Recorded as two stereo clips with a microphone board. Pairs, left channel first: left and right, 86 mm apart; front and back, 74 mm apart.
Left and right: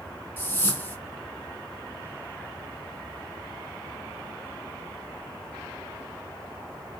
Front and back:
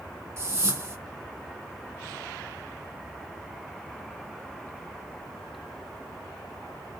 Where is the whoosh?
145° left, 0.7 m.